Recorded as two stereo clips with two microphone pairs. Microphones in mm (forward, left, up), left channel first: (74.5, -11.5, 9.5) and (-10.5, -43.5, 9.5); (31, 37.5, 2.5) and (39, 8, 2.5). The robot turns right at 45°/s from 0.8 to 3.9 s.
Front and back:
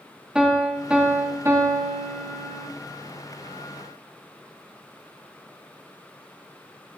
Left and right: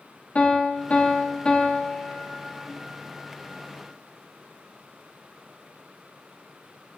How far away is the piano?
About 1.8 m.